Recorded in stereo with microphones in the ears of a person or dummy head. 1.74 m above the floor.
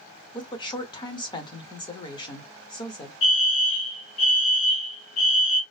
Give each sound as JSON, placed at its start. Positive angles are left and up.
{"t": 0.3, "sound": "a woman speaking", "side_deg": 25, "distance_m": 0.8}
{"t": 3.2, "sound": "a fire alarm", "side_deg": 30, "distance_m": 0.7}